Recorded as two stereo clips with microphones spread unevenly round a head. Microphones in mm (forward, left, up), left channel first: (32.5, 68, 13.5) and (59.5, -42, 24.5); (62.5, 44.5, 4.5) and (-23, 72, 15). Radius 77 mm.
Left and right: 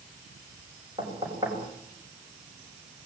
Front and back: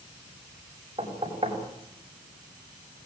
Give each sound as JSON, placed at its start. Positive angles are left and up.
{"t": 1.0, "sound": "knocking", "azimuth_deg": -145, "distance_m": 6.5}